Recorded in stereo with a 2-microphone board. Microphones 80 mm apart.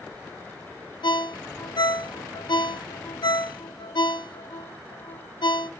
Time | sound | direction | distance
1.0 | a ringtone | 75° left (ahead or behind) | 0.5 m